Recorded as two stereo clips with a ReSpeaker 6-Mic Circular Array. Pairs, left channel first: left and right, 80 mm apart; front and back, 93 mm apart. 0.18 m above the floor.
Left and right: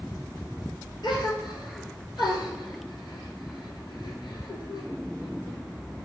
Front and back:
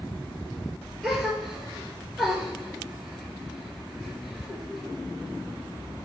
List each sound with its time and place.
1.0 s a gasp: 90° left, 0.8 m